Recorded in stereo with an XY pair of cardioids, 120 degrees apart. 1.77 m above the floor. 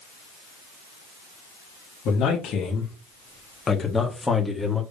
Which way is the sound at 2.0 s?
70° left.